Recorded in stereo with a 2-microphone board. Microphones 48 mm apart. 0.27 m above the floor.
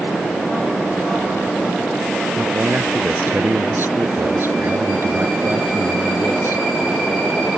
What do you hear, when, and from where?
2.4 s a man speaking: 50° right (ahead or behind)